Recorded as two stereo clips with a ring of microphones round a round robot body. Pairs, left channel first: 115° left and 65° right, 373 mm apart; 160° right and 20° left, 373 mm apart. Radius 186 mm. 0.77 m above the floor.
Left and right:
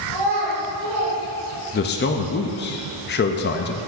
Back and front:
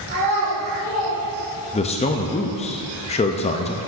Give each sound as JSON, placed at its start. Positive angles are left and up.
{"t": 0.1, "sound": "a child speaking", "azimuth_deg": -35, "distance_m": 3.0}
{"t": 1.7, "sound": "a man speaking", "azimuth_deg": 145, "distance_m": 0.5}